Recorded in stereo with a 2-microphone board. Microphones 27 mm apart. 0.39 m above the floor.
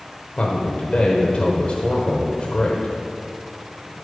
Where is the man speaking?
40° left (ahead or behind), 1.1 m.